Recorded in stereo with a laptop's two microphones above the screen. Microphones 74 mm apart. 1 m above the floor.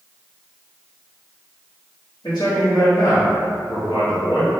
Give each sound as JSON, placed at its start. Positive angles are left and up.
{"t": 2.2, "sound": "a man speaking", "side_deg": 70, "distance_m": 1.4}